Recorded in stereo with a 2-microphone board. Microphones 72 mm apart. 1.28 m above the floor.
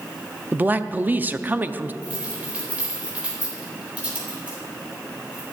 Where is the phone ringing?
I don't hear a phone ringing.